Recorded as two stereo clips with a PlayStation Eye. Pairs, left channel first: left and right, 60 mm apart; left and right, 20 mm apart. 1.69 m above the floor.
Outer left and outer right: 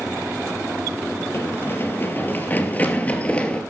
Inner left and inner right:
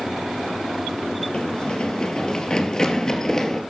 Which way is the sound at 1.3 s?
45° left (ahead or behind).